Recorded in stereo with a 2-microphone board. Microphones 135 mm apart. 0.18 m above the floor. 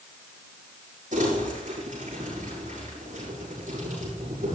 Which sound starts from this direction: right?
Crumpling, at 1.1 s.